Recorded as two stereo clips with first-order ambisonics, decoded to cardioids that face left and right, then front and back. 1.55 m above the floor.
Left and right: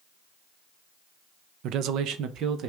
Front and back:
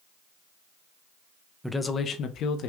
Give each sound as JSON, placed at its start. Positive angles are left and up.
{"t": 1.6, "sound": "a man speaking", "azimuth_deg": -90, "distance_m": 0.5}